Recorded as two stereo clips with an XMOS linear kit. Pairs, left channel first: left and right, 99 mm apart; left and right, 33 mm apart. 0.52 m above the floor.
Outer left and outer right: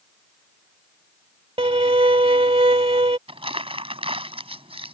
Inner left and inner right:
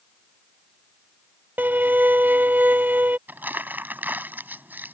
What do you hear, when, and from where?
1.6 s a violin: 75° right (ahead or behind)
3.3 s crumpling: 75° right (ahead or behind)